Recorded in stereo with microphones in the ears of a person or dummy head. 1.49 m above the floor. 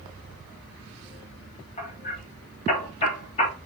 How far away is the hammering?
About 3.5 m.